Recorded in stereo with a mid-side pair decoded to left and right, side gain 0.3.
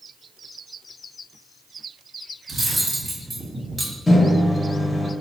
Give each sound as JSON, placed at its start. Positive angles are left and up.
{"t": 2.5, "sound": "cutlery clinking", "azimuth_deg": -35, "distance_m": 1.5}
{"t": 4.1, "sound": "a microwave", "azimuth_deg": 35, "distance_m": 0.9}